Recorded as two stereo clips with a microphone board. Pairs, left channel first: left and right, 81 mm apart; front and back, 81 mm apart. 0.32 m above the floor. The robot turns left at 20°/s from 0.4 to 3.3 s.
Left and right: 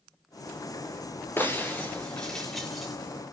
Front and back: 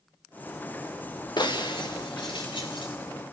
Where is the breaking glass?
25° left, 3 m; by 2.9 s 5° right, 3 m.